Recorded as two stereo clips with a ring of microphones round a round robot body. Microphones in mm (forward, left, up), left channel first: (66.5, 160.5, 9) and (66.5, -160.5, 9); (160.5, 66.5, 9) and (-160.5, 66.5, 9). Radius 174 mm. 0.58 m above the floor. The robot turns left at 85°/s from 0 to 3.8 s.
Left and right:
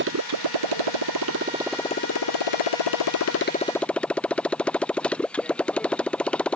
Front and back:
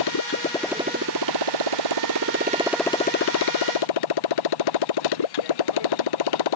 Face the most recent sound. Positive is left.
turn(degrees=5)